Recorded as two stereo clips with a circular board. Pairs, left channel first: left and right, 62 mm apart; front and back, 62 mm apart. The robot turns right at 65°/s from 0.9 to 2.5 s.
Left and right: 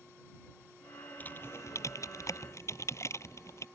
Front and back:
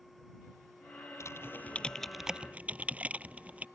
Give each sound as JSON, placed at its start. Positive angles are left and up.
{"t": 1.2, "sound": "typing on a keyboard", "azimuth_deg": 30}